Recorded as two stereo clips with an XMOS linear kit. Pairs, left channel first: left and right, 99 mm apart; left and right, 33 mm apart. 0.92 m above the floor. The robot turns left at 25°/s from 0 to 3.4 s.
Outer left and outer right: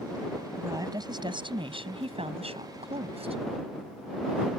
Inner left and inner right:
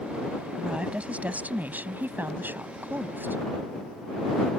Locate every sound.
0.5 s a woman speaking: 30° right; by 3.4 s 105° right